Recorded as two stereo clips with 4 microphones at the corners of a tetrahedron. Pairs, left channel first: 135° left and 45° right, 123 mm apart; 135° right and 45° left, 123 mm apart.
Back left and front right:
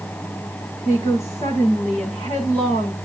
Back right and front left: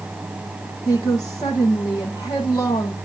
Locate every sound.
0.8 s a woman speaking: 170° left, 7 m